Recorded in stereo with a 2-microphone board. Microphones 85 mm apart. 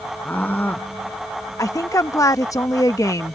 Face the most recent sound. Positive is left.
turn(degrees=40)  # may be behind; listen again after turning